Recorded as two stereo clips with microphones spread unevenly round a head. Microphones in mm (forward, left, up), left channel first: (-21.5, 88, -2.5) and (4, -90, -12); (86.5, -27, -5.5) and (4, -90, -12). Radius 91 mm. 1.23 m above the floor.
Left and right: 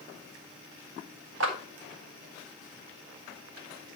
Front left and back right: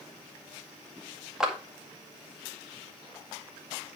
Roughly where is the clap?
Ahead right.